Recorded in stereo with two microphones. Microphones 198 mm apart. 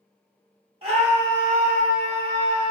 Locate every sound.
0.8 s a scream: 30° right (ahead or behind), 0.8 m; by 2.7 s 25° right (ahead or behind), 1.1 m